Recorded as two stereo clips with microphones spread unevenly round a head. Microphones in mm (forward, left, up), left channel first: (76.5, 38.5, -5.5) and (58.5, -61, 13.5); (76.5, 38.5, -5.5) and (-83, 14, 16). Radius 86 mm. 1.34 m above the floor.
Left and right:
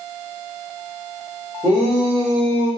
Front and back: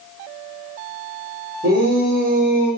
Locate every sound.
1.6 s a shout: 175° right, 5.5 m; by 2.7 s straight behind, 6 m